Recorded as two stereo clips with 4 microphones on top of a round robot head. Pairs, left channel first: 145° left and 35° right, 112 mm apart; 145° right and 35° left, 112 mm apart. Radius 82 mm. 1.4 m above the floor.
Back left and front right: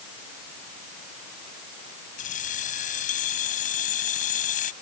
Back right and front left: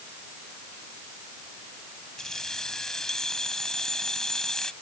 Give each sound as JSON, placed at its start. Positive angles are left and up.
{"t": 2.2, "sound": "keys jangling", "azimuth_deg": 135}